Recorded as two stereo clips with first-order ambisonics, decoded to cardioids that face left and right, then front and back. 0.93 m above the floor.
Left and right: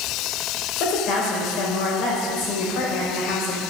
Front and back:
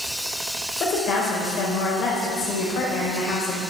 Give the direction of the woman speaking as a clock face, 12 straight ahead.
10 o'clock.